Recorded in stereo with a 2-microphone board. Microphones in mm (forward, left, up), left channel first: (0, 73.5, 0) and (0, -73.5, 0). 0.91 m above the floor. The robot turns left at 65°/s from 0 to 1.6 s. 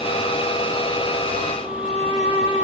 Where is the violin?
60° left (ahead or behind), 3 m.